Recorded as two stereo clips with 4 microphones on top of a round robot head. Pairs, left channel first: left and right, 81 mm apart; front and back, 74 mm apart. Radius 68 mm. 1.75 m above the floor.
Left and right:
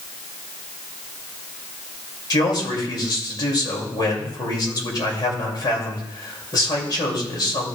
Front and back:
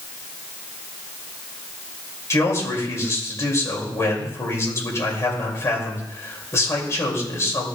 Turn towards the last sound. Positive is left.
turn(degrees=55)